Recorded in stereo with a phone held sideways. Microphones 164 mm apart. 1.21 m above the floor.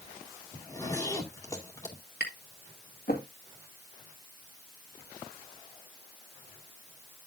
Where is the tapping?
80° left, 1.8 m.